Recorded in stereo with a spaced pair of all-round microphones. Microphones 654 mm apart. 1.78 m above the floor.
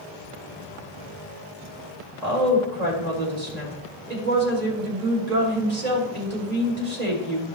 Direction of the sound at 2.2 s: 70° right (ahead or behind).